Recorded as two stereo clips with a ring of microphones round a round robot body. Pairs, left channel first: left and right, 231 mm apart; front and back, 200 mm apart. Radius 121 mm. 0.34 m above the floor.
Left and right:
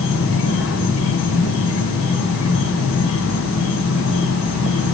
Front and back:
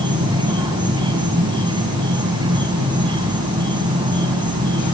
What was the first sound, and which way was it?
An insect, 115° left.